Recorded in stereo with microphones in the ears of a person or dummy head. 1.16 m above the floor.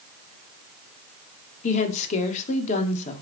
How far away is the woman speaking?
About 2 m.